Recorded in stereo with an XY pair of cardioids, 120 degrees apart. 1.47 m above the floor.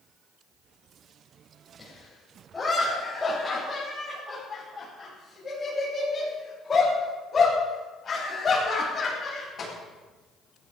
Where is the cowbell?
I don't hear a cowbell.